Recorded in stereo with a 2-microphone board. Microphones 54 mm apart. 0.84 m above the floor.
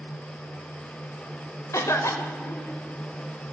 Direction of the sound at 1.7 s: 70° left (ahead or behind).